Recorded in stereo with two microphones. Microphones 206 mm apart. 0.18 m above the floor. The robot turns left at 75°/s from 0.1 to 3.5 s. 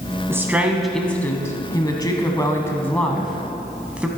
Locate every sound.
0.3 s a woman speaking: 10° right (ahead or behind), 1.0 m; by 4.1 s 5° right (ahead or behind), 1.0 m